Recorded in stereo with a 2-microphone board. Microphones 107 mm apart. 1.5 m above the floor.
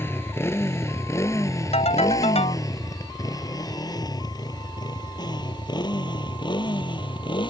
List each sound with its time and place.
0.0 s a motorcycle: 20° left (ahead or behind); by 7.5 s 45° left (ahead or behind)
1.7 s a ringtone: 80° left